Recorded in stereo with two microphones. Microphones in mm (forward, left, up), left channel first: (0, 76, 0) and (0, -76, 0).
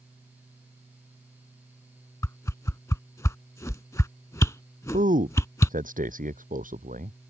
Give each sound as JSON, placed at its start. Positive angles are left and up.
{"t": 2.2, "sound": "a whoosh", "side_deg": 20}
{"t": 4.9, "sound": "a man speaking", "side_deg": -65}